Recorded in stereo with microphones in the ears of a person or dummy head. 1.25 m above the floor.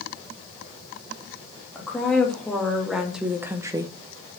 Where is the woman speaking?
5° left (ahead or behind), 2 m; by 3.9 s 20° right (ahead or behind), 0.6 m.